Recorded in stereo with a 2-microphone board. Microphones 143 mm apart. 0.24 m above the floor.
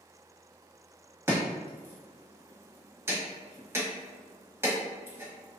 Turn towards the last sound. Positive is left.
turn(degrees=-20)  # may be behind; listen again after turning